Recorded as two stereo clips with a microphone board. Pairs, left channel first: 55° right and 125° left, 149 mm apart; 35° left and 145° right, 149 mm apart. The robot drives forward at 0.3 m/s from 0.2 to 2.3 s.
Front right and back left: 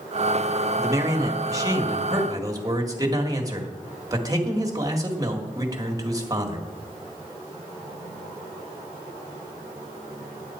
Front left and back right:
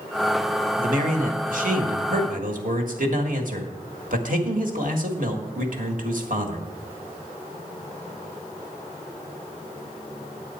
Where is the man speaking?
165° right, 1.3 m; by 6.7 s 170° right, 1.7 m.